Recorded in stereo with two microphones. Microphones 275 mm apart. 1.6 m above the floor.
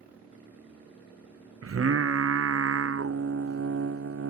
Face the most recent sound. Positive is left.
turn(degrees=-55)  # may be behind; listen again after turning